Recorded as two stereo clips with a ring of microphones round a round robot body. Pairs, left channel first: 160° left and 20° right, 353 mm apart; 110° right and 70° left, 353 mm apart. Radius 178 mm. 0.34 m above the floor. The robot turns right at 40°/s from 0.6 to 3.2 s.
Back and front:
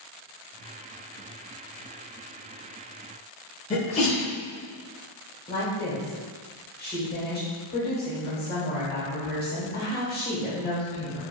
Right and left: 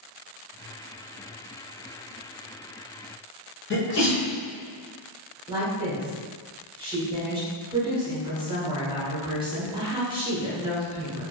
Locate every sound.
3.7 s a sneeze: 140° right, 1.0 m
5.5 s a woman speaking: 130° left, 1.2 m